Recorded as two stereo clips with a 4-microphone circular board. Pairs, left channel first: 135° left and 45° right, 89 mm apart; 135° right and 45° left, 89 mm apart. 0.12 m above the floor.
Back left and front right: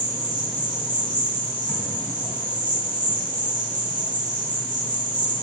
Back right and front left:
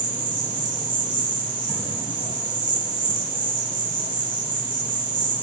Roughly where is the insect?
Ahead left.